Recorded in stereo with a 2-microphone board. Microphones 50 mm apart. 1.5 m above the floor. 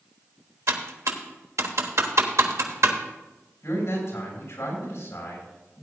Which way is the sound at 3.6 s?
75° left (ahead or behind).